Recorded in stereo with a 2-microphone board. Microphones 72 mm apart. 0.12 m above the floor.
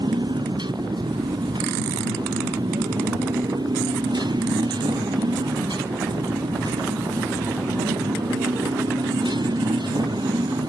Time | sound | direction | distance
0.0 | a motorcycle | 85° right | ?